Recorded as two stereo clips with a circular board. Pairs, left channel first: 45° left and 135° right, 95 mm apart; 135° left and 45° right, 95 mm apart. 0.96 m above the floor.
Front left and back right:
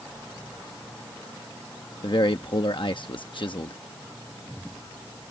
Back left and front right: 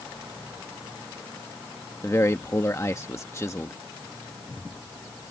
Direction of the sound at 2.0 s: 75° left.